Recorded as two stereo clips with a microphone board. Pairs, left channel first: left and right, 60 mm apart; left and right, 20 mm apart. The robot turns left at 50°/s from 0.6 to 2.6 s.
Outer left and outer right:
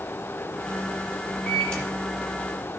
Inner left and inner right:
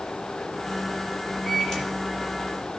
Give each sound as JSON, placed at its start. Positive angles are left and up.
{"t": 1.5, "sound": "a microwave", "side_deg": 0, "distance_m": 5.5}